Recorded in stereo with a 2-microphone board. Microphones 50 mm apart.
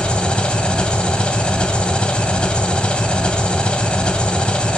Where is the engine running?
20° left (ahead or behind), 1.4 m.